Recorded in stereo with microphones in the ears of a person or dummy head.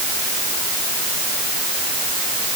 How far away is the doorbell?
I don't hear a doorbell.